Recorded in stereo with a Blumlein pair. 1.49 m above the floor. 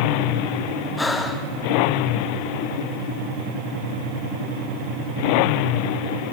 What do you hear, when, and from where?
1.0 s breathing: 10° left, 1.8 m